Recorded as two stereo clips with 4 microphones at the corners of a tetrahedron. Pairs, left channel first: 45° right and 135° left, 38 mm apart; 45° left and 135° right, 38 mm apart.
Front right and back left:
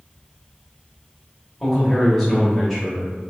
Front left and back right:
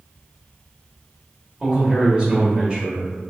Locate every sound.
1.6 s a man speaking: 120° right, 0.9 m